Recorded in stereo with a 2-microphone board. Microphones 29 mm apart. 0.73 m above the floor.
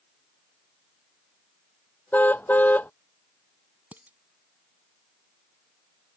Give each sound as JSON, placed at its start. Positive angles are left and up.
{"t": 2.1, "sound": "a car horn", "side_deg": 85}
{"t": 3.9, "sound": "dishes clattering", "side_deg": -65}